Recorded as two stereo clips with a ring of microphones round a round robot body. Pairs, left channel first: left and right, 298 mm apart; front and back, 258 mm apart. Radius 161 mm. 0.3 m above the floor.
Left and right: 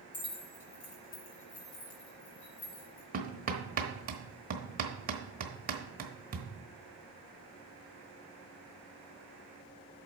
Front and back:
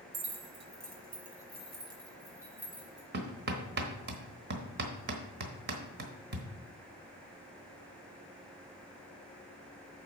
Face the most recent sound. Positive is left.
turn(degrees=-145)